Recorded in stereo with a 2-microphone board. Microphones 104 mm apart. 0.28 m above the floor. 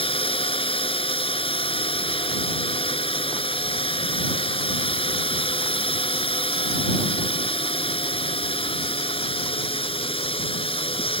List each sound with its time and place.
0.0 s a drone: 60° left (ahead or behind)